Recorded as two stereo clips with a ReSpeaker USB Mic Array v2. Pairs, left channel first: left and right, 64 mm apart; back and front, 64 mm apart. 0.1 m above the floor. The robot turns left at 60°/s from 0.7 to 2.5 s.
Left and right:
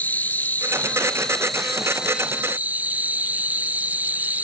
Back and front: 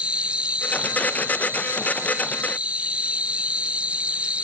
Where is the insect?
55° left; by 4.4 s 55° right.